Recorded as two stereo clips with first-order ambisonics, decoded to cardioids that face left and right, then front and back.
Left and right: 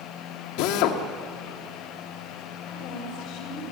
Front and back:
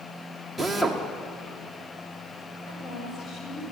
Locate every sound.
0.6 s a drill: 90° left, 1.8 m
2.7 s a woman speaking: 60° left, 8 m